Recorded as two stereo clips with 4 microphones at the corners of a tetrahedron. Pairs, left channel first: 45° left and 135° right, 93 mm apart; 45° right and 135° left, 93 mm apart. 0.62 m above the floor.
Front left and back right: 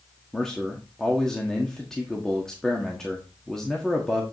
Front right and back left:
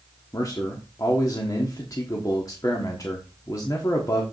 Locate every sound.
0.3 s a man speaking: 35° right, 1.3 m